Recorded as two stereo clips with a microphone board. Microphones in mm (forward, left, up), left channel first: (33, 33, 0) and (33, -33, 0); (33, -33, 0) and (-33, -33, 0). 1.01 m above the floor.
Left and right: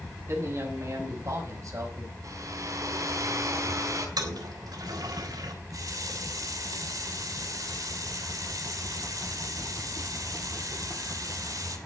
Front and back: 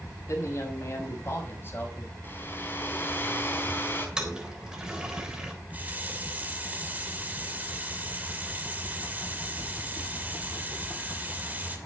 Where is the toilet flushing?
105° right, 3.5 m.